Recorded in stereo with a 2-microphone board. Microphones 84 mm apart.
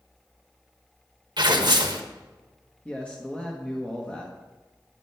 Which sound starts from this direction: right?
Tearing paper, at 1.4 s.